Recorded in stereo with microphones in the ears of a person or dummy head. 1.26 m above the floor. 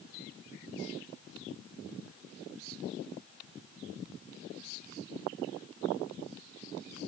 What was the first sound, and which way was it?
Only background noise.